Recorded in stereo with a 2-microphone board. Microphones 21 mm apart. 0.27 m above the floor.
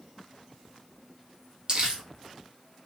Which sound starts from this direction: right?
Crumpling, at 1.7 s.